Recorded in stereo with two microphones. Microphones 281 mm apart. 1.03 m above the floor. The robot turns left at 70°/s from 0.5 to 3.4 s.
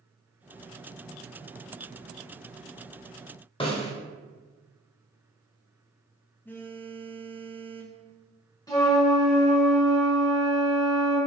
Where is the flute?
15° left (ahead or behind), 1.6 m.